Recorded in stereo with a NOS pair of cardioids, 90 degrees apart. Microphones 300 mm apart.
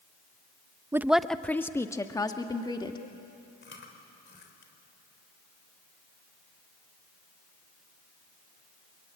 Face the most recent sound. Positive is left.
turn(degrees=40)